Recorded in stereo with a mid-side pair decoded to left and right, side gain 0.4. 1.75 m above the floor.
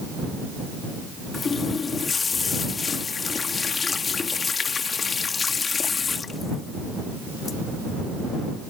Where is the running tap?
45° left.